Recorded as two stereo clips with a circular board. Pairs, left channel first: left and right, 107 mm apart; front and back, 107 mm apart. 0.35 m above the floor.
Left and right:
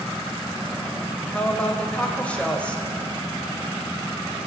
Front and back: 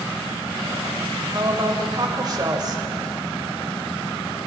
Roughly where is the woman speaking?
Behind.